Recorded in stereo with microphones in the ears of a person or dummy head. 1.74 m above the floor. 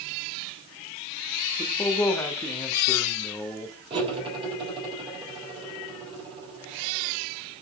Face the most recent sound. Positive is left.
turn(degrees=-25)  # may be behind; listen again after turning